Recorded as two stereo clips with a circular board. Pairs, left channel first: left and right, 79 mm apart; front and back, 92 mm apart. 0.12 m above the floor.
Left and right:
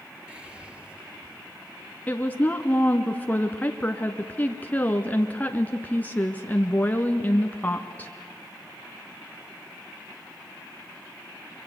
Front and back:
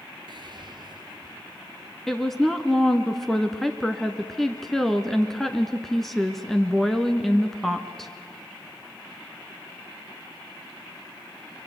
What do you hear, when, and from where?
0.3 s whispering: 165° right, 3 m
2.1 s a woman speaking: 80° left, 1.1 m